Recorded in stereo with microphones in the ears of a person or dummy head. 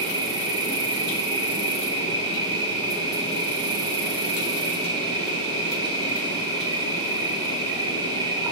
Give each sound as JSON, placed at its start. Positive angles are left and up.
{"t": 0.0, "sound": "an insect", "side_deg": -15, "distance_m": 0.8}